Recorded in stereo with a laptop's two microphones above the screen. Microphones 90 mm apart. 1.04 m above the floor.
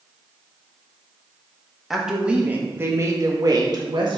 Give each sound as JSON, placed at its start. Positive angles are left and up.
{"t": 1.9, "sound": "a woman speaking", "side_deg": 0, "distance_m": 1.6}